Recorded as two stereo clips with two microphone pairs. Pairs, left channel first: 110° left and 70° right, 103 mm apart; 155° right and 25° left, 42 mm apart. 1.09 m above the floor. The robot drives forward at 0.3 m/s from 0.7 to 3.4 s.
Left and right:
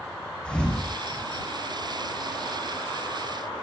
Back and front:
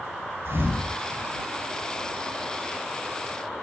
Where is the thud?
25° left, 7 m; by 1.2 s 30° left, 7 m.